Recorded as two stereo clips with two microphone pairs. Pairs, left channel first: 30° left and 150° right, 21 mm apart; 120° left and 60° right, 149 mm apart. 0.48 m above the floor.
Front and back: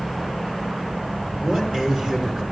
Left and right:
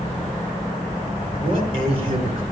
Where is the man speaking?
105° right, 5.5 m.